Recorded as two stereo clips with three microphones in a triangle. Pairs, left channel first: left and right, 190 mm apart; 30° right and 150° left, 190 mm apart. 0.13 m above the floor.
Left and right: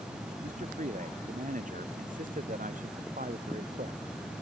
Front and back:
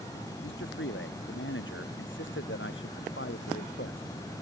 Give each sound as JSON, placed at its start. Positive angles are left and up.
{"t": 0.4, "sound": "a man speaking", "azimuth_deg": -40}